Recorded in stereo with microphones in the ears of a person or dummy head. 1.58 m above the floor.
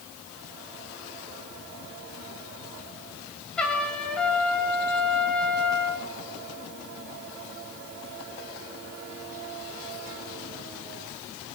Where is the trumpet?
5° left (ahead or behind), 3 m.